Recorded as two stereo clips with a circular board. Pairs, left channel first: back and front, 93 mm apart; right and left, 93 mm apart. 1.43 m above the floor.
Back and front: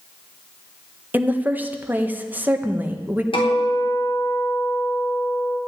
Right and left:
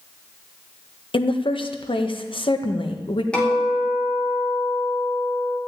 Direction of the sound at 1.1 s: 70° right.